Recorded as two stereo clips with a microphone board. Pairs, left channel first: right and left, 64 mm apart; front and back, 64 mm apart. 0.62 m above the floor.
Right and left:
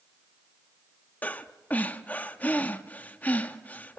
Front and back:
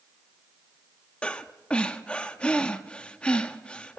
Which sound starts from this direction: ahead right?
Breathing, at 1.2 s.